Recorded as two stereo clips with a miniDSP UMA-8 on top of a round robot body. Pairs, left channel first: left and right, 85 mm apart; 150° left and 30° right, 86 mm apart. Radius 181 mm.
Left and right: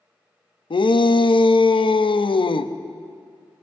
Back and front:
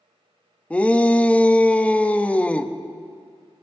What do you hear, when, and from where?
0.7 s a shout: 75° left, 1.1 m